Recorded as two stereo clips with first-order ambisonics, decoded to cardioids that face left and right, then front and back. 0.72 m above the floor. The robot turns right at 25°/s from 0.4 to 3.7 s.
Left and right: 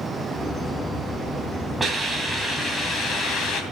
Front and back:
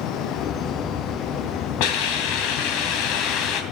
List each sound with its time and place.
1.8 s a hiss: 5° right, 2.5 m; by 3.6 s 40° left, 2.5 m